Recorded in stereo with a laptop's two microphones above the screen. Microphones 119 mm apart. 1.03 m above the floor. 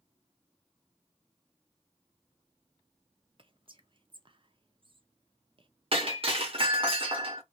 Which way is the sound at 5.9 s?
50° right (ahead or behind).